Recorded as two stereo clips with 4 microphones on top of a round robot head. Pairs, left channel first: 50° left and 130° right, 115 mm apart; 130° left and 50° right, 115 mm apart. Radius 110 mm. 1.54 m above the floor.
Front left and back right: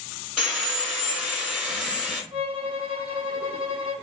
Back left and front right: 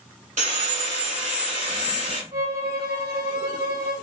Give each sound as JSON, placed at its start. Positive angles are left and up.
{"t": 0.4, "sound": "sawing", "azimuth_deg": -45, "distance_m": 1.8}
{"t": 2.3, "sound": "a violin", "azimuth_deg": -80, "distance_m": 2.5}